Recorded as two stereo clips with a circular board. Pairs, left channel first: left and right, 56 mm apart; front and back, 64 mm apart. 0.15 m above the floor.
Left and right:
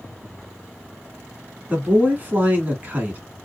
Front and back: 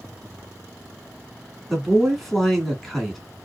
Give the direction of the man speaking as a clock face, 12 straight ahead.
3 o'clock.